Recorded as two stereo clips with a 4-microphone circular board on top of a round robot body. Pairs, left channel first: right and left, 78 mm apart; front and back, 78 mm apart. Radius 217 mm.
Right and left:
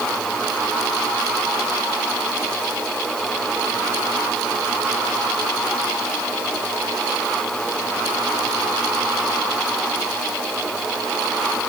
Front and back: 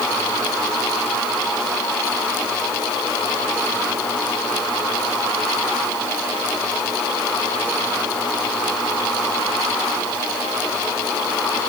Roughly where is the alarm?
I don't hear an alarm.